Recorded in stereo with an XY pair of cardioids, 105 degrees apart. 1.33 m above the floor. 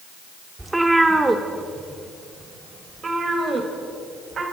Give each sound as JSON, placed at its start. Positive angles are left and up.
{"t": 0.6, "sound": "a cat meowing", "azimuth_deg": -10, "distance_m": 1.9}